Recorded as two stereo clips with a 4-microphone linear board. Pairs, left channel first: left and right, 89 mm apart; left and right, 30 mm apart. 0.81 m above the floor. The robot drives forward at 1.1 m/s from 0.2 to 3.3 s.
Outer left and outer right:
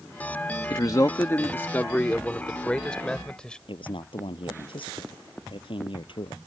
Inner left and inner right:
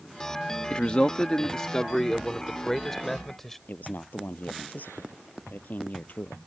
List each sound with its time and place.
0.7 s a man speaking: 45° left (ahead or behind); by 3.6 s 10° left (ahead or behind)
3.7 s a man speaking: 70° left (ahead or behind)